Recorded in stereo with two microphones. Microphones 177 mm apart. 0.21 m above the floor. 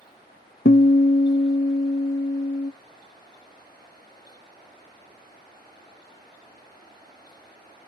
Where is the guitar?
65° left (ahead or behind), 0.5 m.